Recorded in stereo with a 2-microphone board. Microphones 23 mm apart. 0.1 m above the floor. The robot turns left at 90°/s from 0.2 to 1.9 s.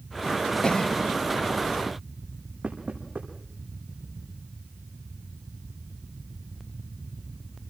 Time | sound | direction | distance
0.6 | a cough | 20° left (ahead or behind) | 2.5 m
2.6 | knocking | 75° right (ahead or behind) | 6.5 m